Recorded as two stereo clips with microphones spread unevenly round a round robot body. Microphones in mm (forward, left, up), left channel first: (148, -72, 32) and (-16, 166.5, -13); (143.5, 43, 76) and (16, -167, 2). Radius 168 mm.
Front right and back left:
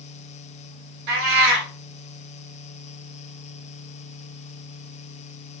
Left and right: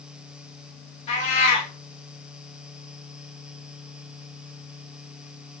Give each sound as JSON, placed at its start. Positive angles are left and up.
{"t": 1.1, "sound": "a cat meowing", "azimuth_deg": 120, "distance_m": 1.2}